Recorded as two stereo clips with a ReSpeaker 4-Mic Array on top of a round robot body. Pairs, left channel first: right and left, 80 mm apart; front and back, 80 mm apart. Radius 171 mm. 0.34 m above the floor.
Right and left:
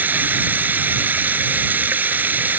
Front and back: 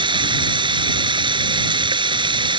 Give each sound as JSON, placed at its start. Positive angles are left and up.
{"t": 0.0, "sound": "running water", "azimuth_deg": 160}